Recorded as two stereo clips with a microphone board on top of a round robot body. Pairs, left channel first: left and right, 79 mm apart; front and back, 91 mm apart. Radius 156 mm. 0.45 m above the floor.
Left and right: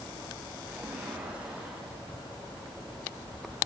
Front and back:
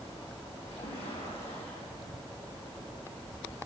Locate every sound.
0.7 s a splash: 15° right, 7 m